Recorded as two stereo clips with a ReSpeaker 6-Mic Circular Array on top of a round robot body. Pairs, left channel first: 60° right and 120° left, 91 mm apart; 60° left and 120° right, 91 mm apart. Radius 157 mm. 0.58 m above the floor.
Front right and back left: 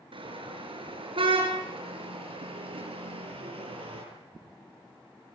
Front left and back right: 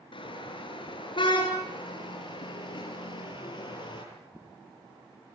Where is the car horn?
90° left, 7 m; by 4.0 s 95° left, 10 m.